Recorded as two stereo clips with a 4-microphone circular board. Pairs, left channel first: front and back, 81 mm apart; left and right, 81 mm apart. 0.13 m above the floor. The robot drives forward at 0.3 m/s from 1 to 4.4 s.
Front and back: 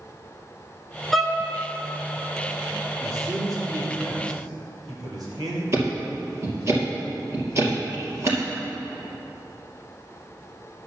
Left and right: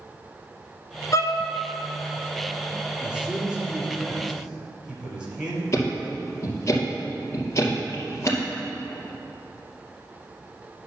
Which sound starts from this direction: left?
A violin, at 1.1 s.